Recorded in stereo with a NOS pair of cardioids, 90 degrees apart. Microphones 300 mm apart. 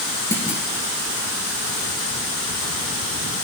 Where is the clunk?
10° left, 5 m.